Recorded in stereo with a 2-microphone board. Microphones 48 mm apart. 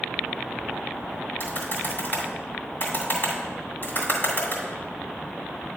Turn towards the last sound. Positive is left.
turn(degrees=45)  # may be behind; listen again after turning